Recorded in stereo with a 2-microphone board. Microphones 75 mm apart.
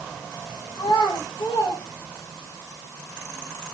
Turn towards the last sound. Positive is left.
turn(degrees=85)